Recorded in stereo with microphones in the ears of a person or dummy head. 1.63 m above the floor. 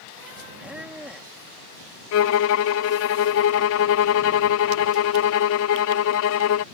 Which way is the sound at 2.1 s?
60° left (ahead or behind).